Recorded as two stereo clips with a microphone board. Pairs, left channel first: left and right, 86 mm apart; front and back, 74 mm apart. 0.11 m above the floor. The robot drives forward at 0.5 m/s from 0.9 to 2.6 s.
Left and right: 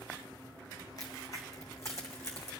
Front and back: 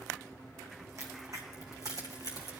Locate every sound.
1.0 s a crack: 135° left, 1.7 m; by 2.5 s 150° left, 2.5 m